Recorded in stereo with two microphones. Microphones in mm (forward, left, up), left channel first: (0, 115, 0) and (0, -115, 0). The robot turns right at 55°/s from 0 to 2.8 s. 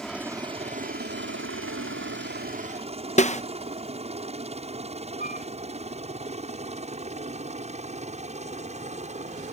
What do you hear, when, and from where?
0.0 s a helicopter: 5° left (ahead or behind); by 9.5 s 30° right (ahead or behind)
3.2 s a snare drum: 30° left (ahead or behind)
5.2 s a flute: 40° left (ahead or behind)